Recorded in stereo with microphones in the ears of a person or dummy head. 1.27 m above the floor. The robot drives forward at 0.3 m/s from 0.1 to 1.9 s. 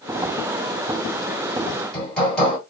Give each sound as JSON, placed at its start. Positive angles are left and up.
{"t": 1.7, "sound": "hammering", "side_deg": 5, "distance_m": 2.5}